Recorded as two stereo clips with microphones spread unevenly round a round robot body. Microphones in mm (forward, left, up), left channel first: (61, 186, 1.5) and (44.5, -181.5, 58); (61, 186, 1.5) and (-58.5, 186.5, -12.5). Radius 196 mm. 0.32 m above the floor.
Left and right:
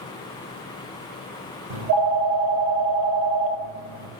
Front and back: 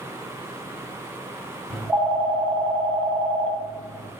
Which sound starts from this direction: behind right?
A phone ringing, at 1.7 s.